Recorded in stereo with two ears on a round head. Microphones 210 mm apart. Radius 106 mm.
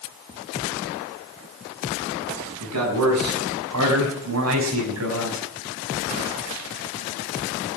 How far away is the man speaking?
About 6.5 m.